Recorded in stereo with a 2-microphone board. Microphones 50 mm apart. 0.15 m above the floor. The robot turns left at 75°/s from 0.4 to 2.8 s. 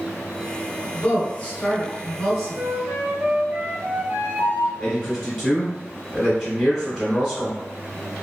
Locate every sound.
0.9 s a woman speaking: 25° left (ahead or behind), 1.8 m; by 2.6 s 10° right (ahead or behind), 1.8 m
2.5 s a flute: 55° right (ahead or behind), 0.8 m; by 4.7 s 45° right (ahead or behind), 0.8 m
4.8 s a man speaking: 5° right (ahead or behind), 1.5 m